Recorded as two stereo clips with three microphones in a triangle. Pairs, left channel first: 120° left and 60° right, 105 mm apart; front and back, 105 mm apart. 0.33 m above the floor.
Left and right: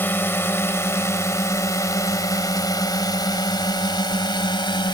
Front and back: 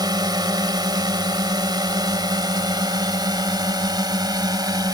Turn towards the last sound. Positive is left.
turn(degrees=140)